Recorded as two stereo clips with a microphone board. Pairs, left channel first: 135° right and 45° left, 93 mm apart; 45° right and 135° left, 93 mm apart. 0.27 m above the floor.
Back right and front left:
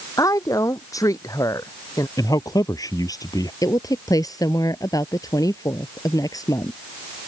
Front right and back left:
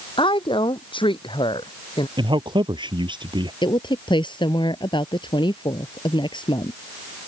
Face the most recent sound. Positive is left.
turn(degrees=-80)